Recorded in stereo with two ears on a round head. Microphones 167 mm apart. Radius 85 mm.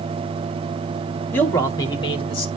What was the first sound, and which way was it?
A man speaking, 10° left (ahead or behind).